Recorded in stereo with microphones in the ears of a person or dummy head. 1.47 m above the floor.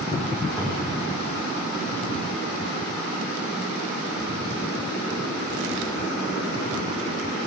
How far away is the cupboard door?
About 3.5 m.